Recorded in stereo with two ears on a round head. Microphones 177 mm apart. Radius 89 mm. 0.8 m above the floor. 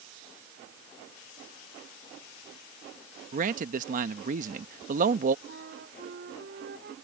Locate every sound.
3.3 s a man speaking: 40° right (ahead or behind)
5.5 s a flute: 50° right (ahead or behind)